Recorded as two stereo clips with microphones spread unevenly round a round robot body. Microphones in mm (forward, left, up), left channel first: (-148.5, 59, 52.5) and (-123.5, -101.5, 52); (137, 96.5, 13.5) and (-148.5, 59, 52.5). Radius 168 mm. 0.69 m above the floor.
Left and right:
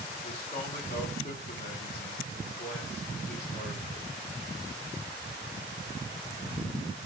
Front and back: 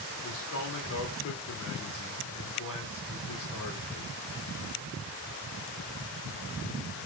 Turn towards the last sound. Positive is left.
turn(degrees=45)